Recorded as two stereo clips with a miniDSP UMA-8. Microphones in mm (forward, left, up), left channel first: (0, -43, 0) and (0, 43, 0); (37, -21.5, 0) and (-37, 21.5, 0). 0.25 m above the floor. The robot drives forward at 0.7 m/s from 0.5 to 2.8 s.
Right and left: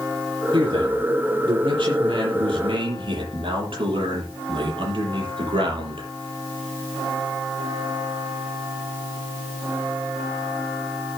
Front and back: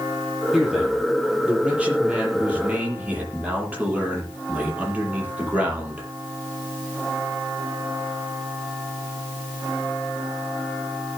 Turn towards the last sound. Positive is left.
turn(degrees=75)